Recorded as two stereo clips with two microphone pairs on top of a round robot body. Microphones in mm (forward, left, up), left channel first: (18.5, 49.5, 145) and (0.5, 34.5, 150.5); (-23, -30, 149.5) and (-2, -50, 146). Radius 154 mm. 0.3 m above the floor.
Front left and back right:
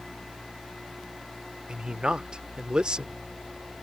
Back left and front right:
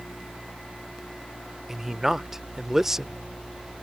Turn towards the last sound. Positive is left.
turn(degrees=-105)